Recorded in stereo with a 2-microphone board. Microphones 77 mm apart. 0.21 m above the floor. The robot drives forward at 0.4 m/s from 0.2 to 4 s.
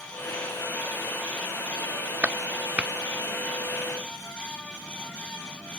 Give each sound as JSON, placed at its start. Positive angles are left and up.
{"t": 2.2, "sound": "a clap", "side_deg": -15}